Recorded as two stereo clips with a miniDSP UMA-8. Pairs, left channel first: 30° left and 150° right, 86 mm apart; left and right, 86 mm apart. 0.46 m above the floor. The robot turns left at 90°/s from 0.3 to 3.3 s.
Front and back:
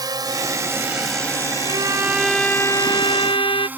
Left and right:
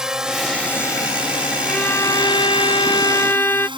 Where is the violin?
175° left; by 3.7 s 30° left.